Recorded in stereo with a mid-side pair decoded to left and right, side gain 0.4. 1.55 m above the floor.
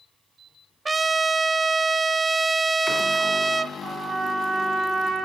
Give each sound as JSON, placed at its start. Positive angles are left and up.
{"t": 0.8, "sound": "a trumpet", "azimuth_deg": -30, "distance_m": 0.8}
{"t": 3.8, "sound": "a trumpet", "azimuth_deg": -45, "distance_m": 4.5}